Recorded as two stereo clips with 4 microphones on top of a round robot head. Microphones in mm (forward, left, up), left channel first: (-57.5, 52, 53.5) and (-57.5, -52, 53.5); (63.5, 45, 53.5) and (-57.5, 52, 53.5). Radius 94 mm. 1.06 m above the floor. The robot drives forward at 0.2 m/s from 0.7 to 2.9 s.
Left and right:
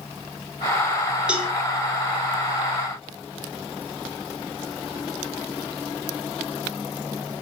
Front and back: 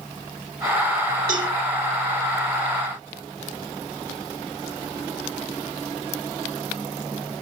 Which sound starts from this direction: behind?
A cowbell, at 1.3 s.